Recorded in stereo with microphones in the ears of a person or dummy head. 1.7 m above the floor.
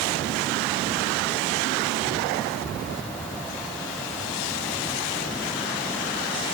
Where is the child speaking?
No child speaking in this recording.